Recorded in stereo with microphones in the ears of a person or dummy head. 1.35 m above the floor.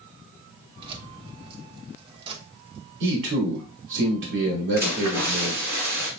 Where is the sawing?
I don't hear sawing.